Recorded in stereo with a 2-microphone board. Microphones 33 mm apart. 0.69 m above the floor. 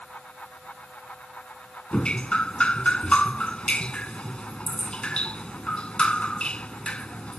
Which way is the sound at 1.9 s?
35° left (ahead or behind).